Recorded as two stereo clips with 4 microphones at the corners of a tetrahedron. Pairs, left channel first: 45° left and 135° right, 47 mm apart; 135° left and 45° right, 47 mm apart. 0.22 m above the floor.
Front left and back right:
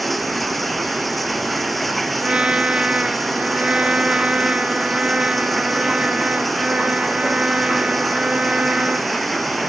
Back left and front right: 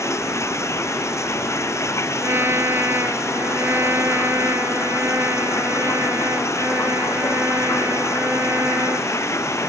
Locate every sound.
0.0 s running water: 135° left
2.2 s a trumpet: 70° right